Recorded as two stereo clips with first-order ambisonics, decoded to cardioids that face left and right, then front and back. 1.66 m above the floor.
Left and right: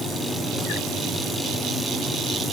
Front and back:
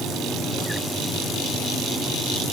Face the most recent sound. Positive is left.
No sound to turn to.